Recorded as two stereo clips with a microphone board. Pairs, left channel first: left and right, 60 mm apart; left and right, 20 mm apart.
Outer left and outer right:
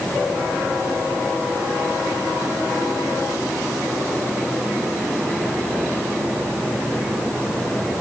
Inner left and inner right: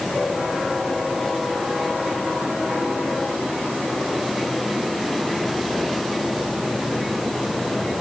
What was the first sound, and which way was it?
Only background noise.